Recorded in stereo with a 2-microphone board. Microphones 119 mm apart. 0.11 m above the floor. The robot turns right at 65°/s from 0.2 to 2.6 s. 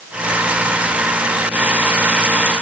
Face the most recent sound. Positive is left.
No sound to turn to.